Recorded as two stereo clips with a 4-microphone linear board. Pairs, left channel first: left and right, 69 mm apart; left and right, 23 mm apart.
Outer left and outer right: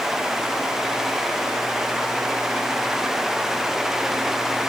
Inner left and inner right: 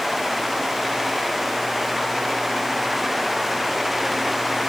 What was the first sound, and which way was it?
Only background noise.